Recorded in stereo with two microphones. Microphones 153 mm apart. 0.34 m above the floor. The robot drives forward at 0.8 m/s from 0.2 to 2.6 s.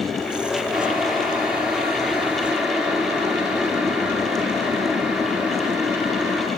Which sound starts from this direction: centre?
Boiling, at 0.7 s.